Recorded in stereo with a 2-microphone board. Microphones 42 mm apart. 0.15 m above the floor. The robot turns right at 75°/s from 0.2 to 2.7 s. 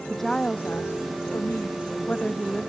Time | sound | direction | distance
0.1 | a woman speaking | 5° left | ?